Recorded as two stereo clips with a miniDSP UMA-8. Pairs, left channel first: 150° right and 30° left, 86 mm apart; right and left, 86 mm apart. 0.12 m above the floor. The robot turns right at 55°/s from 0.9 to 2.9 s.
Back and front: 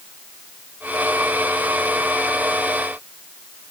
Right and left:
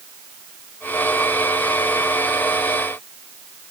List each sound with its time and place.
Only background noise.